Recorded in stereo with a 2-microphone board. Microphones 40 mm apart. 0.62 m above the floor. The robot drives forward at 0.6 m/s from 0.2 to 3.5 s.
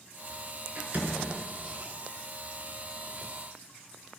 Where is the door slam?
40° right (ahead or behind), 5 m; by 1.3 s 35° right (ahead or behind), 5.5 m.